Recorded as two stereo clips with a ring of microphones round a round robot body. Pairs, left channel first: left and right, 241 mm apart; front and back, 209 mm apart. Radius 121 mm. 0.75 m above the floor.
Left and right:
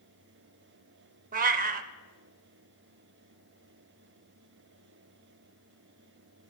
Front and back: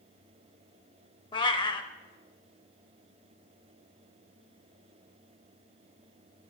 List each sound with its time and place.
1.3 s a cat meowing: 60° right, 0.5 m